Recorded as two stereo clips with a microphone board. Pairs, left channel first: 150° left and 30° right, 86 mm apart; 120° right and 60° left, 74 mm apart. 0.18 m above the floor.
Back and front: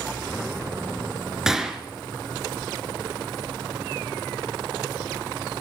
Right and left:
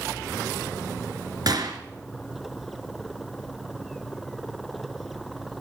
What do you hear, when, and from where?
1.5 s a gunshot: 55° left, 1.6 m